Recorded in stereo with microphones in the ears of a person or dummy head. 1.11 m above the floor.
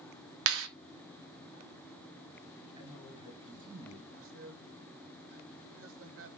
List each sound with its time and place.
0.5 s a clap: 75° right (ahead or behind), 1.6 m
2.8 s a man speaking: 25° right (ahead or behind), 8.5 m
4.2 s a man speaking: 70° right (ahead or behind), 1.8 m